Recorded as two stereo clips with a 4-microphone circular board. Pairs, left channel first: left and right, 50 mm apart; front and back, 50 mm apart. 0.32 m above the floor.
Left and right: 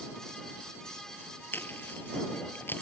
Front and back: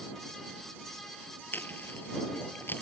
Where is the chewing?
45° left.